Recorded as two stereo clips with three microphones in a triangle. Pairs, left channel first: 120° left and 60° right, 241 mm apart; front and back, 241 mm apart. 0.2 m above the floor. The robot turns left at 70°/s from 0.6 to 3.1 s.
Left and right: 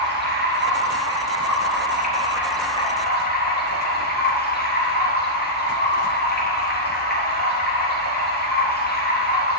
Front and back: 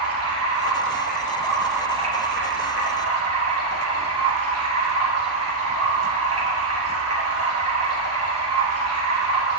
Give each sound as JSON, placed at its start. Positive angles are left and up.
{"t": 0.0, "sound": "running water", "azimuth_deg": -15, "distance_m": 5.0}